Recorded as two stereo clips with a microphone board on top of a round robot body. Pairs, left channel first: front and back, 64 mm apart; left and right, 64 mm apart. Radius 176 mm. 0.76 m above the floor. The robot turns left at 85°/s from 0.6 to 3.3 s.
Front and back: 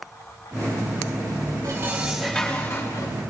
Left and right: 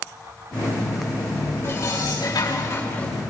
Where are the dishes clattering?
140° left, 6 m; by 3.1 s 10° left, 6 m.